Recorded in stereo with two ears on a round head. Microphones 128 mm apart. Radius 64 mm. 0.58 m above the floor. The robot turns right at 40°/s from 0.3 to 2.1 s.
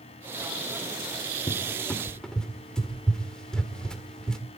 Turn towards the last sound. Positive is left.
turn(degrees=5)  # may be behind; listen again after turning